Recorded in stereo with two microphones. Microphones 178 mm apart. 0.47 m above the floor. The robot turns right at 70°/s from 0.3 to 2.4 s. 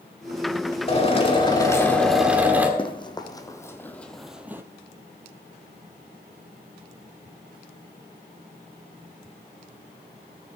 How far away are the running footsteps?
About 1.3 m.